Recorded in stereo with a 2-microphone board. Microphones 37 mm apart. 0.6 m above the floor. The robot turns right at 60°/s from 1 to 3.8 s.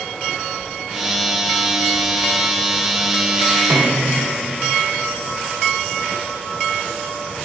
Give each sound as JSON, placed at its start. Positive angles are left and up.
{"t": 3.7, "sound": "a snare drum", "side_deg": -90, "distance_m": 1.1}